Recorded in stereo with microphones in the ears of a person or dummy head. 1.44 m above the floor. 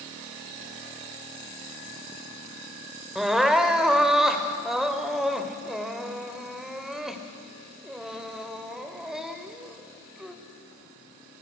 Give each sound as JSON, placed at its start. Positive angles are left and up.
{"t": 3.1, "sound": "crying", "side_deg": 0, "distance_m": 1.4}